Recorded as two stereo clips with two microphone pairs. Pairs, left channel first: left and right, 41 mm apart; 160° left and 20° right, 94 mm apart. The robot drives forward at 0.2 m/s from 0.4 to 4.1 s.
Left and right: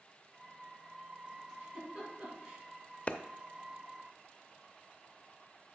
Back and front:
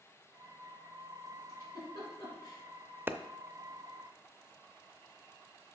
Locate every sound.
1.5 s a giggle: 155° right, 4 m
3.1 s a clap: 35° left, 0.5 m; by 3.2 s 40° left, 0.5 m